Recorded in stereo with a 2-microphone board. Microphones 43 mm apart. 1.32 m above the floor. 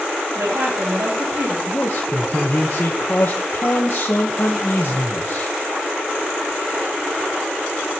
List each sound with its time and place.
0.3 s a woman speaking: 90° right, 6 m
1.7 s a man speaking: 60° left (ahead or behind), 1.5 m